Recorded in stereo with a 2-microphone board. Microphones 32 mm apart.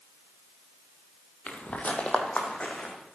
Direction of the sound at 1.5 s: 50° left (ahead or behind).